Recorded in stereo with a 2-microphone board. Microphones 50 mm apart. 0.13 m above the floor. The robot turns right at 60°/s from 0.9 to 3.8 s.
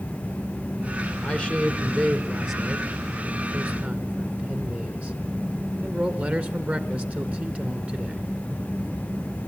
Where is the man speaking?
25° left (ahead or behind), 1.6 m; by 8.2 s 30° right (ahead or behind), 1.6 m.